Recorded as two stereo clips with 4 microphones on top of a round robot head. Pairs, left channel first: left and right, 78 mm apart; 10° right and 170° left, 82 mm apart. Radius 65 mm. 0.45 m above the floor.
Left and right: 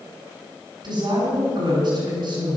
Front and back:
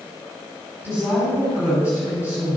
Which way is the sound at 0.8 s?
115° right.